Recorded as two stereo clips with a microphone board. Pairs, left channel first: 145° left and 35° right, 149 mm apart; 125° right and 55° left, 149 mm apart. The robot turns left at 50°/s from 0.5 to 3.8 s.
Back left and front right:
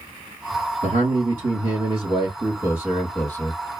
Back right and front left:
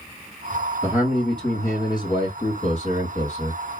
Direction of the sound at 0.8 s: 25° right.